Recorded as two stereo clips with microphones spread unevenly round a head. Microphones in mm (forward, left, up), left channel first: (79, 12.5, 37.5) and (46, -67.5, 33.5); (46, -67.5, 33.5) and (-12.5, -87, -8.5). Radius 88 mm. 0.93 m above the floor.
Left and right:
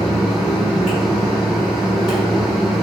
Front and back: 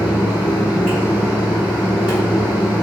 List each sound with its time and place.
0.0 s a fan: 160° left, 1.3 m